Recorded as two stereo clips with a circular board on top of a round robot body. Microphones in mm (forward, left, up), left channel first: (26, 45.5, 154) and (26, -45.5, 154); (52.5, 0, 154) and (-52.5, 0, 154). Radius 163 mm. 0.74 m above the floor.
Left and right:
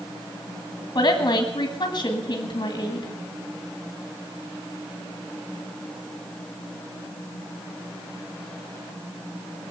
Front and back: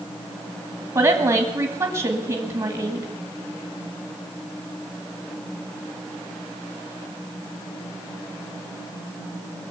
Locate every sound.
0.9 s a woman speaking: 135° left, 1.9 m